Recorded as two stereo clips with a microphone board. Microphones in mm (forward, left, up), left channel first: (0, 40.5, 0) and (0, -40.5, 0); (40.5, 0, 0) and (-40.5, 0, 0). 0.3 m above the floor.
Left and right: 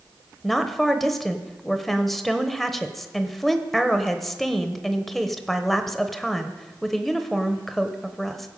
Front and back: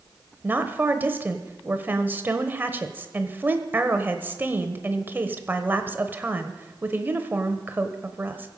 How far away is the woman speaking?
About 1.0 m.